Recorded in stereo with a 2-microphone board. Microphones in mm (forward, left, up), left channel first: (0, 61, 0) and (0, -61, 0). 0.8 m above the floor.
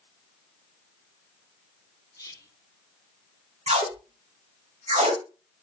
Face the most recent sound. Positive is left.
turn(degrees=-70)  # may be behind; listen again after turning